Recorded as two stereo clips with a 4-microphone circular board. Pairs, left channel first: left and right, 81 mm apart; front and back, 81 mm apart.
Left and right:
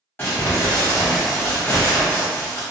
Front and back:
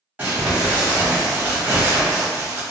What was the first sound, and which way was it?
Crumpling, 125° left.